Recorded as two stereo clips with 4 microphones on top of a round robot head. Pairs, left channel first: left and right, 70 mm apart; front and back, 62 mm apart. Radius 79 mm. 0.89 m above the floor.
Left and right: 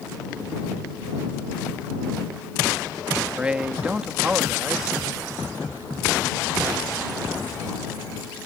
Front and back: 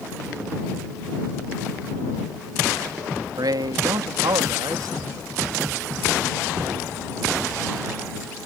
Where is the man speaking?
165° right.